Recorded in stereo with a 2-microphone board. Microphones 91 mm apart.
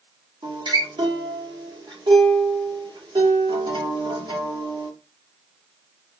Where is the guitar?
60° right (ahead or behind), 2 m.